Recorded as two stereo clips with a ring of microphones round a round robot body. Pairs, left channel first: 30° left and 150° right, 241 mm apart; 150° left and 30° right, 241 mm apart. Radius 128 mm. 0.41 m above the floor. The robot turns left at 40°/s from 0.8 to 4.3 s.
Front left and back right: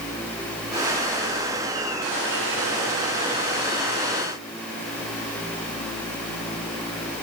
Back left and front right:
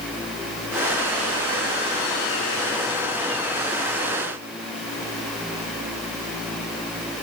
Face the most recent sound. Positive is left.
No sound to turn to.